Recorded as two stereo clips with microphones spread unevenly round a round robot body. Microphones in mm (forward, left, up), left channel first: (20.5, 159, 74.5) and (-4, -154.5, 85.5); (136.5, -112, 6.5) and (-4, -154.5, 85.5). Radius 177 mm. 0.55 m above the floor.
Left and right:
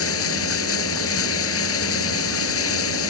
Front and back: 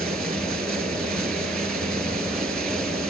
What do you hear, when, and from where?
0.0 s running water: 135° left